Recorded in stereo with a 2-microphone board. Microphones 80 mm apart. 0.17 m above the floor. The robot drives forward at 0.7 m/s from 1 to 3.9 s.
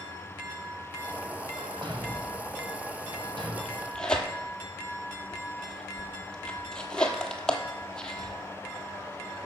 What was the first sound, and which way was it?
A thud, 75° right (ahead or behind).